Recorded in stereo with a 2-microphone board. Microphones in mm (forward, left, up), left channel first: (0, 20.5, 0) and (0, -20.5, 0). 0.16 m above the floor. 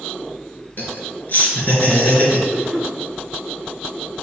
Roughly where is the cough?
Centre.